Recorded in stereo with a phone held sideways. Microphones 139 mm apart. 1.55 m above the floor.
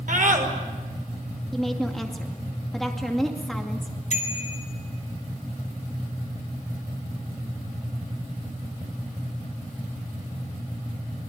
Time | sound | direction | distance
0.1 | a scream | 75° right (ahead or behind) | 6 m
1.5 | a woman speaking | centre (ahead or behind) | 2.5 m
4.1 | a bicycle bell | 60° left (ahead or behind) | 5 m